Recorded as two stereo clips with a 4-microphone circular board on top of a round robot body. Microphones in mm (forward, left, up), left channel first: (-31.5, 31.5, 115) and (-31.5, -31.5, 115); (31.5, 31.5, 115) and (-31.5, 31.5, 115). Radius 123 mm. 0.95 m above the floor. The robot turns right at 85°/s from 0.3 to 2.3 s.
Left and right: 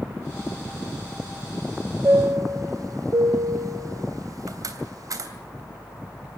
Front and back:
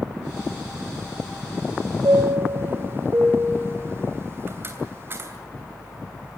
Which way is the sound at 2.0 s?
145° right.